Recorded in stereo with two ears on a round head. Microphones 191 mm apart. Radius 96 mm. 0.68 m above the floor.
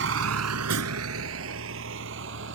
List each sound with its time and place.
0.0 s a vehicle: 60° right (ahead or behind); by 2.5 s 65° right (ahead or behind)